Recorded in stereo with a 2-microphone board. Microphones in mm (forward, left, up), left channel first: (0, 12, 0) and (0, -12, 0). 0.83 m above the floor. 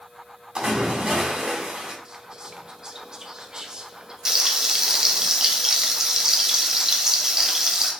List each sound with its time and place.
0.6 s a splash: 40° right (ahead or behind), 1.5 m
2.0 s whispering: 30° right (ahead or behind), 0.5 m
4.2 s frying: 20° right (ahead or behind), 0.6 m